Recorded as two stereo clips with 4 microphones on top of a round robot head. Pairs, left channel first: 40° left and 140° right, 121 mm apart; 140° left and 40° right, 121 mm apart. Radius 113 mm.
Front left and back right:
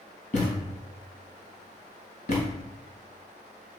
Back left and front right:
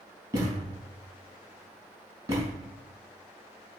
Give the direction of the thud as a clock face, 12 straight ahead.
11 o'clock.